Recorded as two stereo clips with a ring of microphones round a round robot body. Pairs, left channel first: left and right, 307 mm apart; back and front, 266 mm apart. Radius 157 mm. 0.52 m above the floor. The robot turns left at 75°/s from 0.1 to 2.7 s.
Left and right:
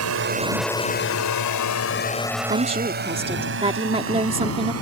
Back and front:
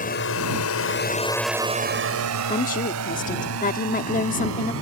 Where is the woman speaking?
130° right; by 4.7 s 150° right.